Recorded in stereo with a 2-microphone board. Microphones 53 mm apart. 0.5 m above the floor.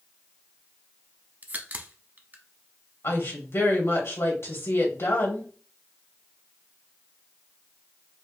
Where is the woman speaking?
60° left (ahead or behind), 2.5 m.